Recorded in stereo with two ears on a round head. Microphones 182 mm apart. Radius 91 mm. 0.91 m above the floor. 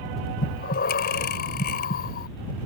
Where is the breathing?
45° left (ahead or behind).